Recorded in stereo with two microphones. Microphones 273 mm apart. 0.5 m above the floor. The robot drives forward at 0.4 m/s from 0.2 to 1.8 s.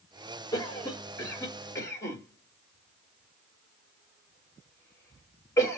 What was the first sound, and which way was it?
A cough, 15° left (ahead or behind).